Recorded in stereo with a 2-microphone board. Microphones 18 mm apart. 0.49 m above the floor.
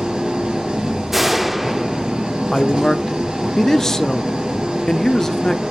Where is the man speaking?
20° left (ahead or behind), 0.7 m.